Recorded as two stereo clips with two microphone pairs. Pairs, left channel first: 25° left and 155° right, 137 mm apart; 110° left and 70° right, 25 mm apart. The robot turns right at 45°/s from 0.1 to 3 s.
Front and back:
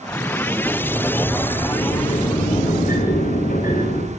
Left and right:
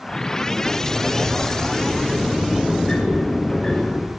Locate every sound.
0.6 s a sliding door: 75° right, 6.5 m; by 4.1 s 35° left, 6.5 m